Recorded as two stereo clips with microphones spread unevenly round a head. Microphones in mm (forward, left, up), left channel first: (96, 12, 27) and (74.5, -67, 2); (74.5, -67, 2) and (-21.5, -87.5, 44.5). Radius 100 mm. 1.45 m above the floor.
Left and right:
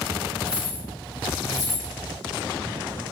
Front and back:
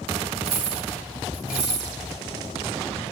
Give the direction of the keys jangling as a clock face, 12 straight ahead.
7 o'clock.